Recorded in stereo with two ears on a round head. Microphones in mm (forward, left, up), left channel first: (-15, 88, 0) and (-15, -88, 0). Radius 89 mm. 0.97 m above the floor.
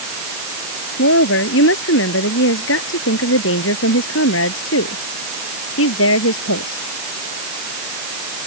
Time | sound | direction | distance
1.0 | a woman speaking | 70° left (ahead or behind) | ?